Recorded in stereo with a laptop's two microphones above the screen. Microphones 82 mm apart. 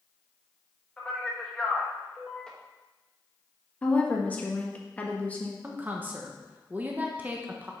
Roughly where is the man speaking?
Centre.